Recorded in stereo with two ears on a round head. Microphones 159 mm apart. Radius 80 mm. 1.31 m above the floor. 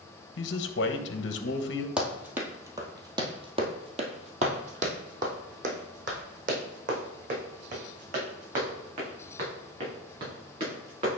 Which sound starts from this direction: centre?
Running footsteps, at 2.0 s.